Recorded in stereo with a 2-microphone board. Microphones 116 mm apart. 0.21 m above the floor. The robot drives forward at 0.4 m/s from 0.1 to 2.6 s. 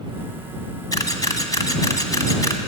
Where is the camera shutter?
35° left (ahead or behind), 1.7 m; by 2.6 s 30° left (ahead or behind), 1.8 m.